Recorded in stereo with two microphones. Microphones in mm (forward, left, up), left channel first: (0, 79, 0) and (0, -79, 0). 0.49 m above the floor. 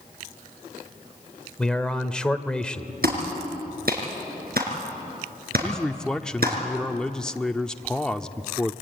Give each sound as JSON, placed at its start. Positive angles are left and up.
{"t": 1.6, "sound": "a man speaking", "side_deg": 5, "distance_m": 1.3}
{"t": 3.0, "sound": "a clap", "side_deg": -75, "distance_m": 5.0}
{"t": 5.6, "sound": "a man speaking", "side_deg": 5, "distance_m": 0.7}